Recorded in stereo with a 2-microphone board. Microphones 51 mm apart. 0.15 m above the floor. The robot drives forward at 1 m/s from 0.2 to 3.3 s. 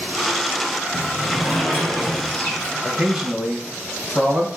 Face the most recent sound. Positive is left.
turn(degrees=-15)  # may be behind; listen again after turning